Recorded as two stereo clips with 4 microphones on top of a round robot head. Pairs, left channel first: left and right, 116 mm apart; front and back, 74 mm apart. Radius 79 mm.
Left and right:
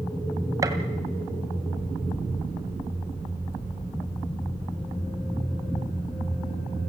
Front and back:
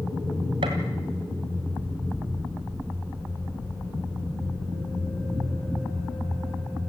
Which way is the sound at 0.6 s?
150° right.